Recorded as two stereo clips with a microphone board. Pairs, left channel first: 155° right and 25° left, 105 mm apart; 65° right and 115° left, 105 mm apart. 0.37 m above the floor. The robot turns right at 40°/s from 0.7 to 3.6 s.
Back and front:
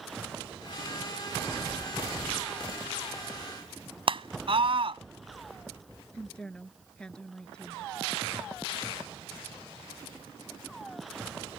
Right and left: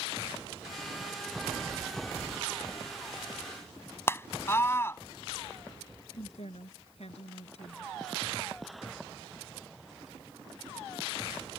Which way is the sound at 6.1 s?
75° right.